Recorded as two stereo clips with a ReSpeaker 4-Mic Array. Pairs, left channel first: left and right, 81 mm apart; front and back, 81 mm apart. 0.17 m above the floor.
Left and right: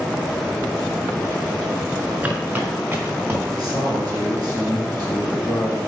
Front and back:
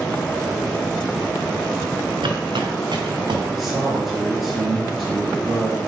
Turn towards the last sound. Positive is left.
turn(degrees=-95)